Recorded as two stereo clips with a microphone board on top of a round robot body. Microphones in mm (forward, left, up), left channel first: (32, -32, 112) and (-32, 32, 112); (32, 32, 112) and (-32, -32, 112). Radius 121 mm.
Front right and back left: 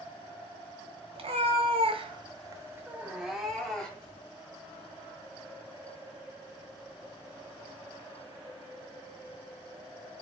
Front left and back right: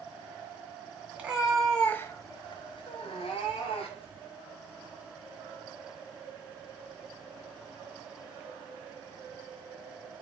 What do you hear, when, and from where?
1.1 s a cat meowing: 150° left, 0.8 m; by 4.2 s 35° left, 1.3 m